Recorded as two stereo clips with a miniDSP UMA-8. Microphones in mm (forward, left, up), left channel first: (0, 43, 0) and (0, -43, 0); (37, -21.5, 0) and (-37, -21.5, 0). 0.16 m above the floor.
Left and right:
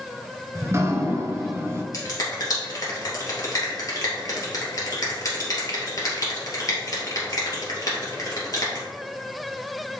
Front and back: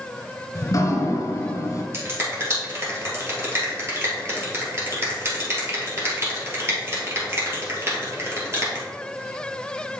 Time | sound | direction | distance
0.6 | dripping | 35° right | 1.2 m
1.9 | a finger snap | 130° left | 2.5 m